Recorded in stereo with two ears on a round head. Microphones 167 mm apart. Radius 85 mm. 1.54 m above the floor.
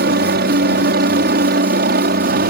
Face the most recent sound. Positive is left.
turn(degrees=-50)  # may be behind; listen again after turning